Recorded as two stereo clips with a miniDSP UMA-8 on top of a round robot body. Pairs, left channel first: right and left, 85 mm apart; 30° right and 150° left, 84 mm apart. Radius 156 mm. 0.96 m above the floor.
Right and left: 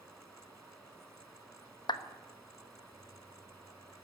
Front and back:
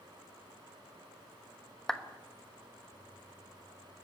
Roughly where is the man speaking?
No man speaking in this recording.